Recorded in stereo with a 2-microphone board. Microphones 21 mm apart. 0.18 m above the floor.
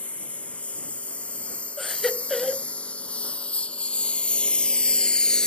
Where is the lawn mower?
80° left; by 5.5 s 35° left (ahead or behind).